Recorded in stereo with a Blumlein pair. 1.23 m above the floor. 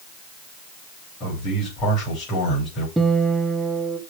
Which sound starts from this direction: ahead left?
A man speaking, at 1.2 s.